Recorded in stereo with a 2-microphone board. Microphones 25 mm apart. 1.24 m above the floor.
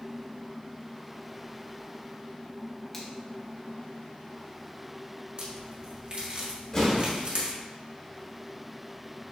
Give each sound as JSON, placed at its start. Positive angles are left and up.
{"t": 2.9, "sound": "a finger snap", "side_deg": 15, "distance_m": 1.0}
{"t": 5.4, "sound": "a crack", "side_deg": -45, "distance_m": 1.2}
{"t": 6.7, "sound": "an explosion", "side_deg": 25, "distance_m": 2.0}